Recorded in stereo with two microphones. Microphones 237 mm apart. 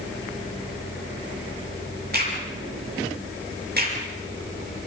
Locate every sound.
2.1 s a crack: 40° right (ahead or behind), 7 m